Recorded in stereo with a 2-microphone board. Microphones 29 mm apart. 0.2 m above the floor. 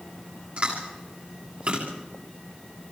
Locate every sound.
0.6 s chewing: 50° right (ahead or behind), 8.5 m